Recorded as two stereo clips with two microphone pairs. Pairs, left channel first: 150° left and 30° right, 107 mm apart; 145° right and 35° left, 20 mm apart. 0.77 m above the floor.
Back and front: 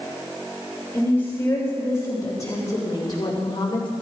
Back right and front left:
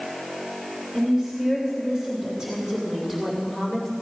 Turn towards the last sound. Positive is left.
turn(degrees=110)